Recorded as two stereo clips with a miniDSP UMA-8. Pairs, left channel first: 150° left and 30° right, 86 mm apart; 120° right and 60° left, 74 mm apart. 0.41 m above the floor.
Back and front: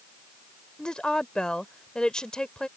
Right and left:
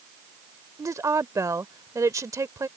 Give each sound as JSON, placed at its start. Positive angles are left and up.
{"t": 0.8, "sound": "a woman speaking", "azimuth_deg": 75}